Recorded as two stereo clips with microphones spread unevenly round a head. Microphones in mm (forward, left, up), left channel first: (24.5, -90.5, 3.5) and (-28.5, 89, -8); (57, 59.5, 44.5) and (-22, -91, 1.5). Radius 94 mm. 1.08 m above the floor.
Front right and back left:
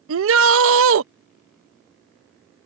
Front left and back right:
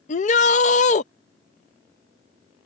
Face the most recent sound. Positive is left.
turn(degrees=115)